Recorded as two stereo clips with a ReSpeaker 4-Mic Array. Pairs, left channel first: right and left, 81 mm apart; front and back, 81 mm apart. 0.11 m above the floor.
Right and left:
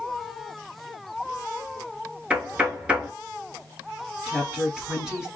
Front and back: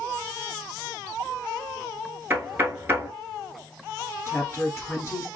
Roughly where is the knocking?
Behind left.